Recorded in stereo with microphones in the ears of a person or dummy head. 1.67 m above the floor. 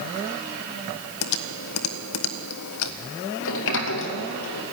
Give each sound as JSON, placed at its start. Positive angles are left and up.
{"t": 1.2, "sound": "typing on a keyboard", "side_deg": 85, "distance_m": 1.3}
{"t": 3.4, "sound": "a sliding door", "side_deg": 70, "distance_m": 2.0}